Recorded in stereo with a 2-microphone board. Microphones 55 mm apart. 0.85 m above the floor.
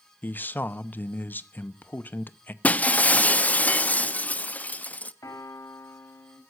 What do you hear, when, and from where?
0.2 s a man speaking: 35° left (ahead or behind), 0.8 m
2.6 s breaking glass: 30° left (ahead or behind), 0.5 m
5.2 s a piano: 85° left, 3.5 m